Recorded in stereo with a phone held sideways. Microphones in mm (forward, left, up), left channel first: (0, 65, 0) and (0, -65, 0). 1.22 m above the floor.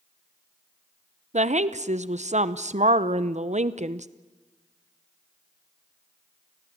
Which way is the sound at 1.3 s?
65° right (ahead or behind).